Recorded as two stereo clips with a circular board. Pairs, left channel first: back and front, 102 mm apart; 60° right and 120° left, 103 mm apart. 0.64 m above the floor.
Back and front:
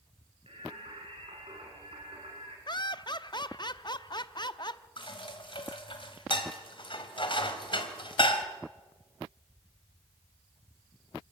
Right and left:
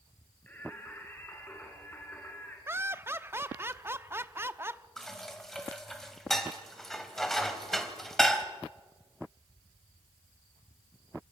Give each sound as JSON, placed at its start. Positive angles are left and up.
{"t": 0.5, "sound": "singing", "azimuth_deg": 10, "distance_m": 5.0}
{"t": 2.7, "sound": "laughter", "azimuth_deg": 180, "distance_m": 0.8}
{"t": 5.0, "sound": "dishes clattering", "azimuth_deg": -145, "distance_m": 2.0}